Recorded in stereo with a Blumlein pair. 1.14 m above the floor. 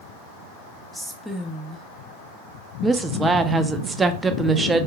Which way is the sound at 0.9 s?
5° left.